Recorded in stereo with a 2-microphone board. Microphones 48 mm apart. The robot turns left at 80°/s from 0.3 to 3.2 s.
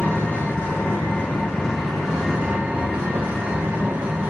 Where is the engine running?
140° left, 1.4 m; by 4.3 s 90° right, 1.4 m.